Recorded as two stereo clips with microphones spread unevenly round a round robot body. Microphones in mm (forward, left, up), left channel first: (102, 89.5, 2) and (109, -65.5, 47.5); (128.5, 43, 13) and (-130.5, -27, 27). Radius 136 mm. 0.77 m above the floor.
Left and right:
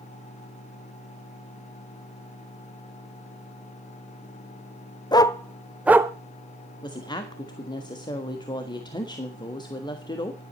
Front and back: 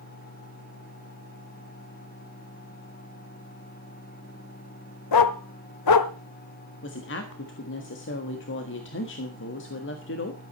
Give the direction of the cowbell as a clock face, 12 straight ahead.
No cowbell in this recording.